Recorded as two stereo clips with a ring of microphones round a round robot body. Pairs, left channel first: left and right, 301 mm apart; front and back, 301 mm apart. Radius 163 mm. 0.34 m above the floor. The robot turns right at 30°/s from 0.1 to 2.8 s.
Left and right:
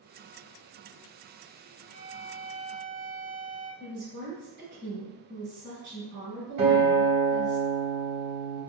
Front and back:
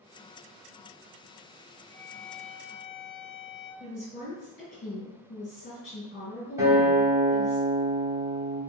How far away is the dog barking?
I don't hear a dog barking.